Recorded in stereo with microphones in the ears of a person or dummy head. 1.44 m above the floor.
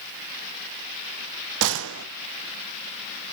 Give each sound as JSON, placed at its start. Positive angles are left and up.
{"t": 1.6, "sound": "a gunshot", "side_deg": -75, "distance_m": 0.5}